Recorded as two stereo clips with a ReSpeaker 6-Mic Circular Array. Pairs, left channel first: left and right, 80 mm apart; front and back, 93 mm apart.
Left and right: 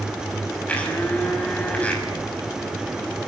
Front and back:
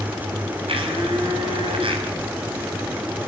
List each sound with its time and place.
0.7 s a blender: 165° left, 6 m